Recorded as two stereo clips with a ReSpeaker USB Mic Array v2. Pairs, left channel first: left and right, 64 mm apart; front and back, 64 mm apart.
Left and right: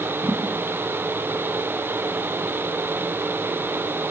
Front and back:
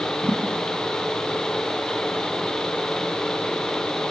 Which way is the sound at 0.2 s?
165° right.